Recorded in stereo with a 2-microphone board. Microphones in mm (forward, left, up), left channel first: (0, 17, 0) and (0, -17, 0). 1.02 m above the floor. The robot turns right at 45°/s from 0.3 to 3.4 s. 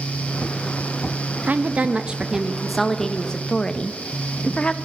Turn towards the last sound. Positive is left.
turn(degrees=30)